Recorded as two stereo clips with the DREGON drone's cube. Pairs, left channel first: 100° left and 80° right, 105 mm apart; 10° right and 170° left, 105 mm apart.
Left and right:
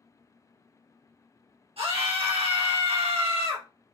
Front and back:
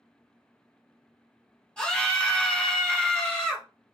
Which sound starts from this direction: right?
A scream, at 1.8 s.